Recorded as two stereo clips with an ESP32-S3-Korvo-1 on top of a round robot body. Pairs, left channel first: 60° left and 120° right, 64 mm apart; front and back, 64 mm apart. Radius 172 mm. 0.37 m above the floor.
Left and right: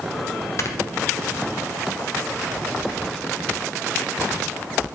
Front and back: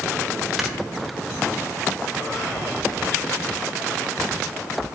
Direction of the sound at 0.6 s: 95° left.